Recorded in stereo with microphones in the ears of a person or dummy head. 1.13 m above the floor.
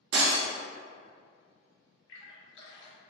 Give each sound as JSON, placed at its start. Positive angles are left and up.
{"t": 0.1, "sound": "breaking glass", "side_deg": -65, "distance_m": 0.9}
{"t": 2.1, "sound": "a splash", "side_deg": 65, "distance_m": 1.1}